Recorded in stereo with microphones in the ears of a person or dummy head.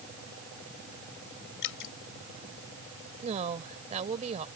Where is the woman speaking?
40° right (ahead or behind).